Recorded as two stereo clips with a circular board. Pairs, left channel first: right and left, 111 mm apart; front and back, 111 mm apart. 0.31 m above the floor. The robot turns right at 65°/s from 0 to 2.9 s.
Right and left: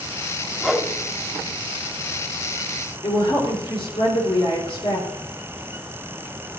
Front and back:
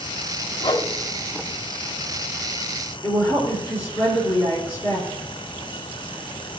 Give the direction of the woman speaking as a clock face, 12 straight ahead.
2 o'clock.